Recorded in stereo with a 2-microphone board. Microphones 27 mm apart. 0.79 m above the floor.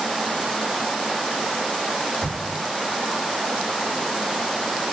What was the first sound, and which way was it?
An explosion, 85° right.